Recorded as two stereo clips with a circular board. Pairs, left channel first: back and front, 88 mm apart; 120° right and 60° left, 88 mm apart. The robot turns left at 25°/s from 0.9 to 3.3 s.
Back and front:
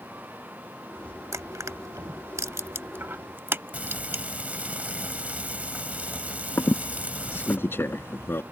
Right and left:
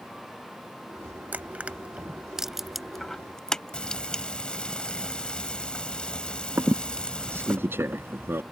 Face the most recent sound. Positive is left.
turn(degrees=120)